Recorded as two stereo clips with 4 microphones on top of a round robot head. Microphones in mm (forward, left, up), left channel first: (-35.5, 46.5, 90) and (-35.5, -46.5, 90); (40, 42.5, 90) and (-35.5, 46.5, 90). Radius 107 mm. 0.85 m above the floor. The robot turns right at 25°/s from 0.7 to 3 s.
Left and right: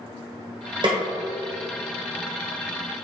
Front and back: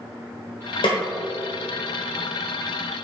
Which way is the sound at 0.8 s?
40° right.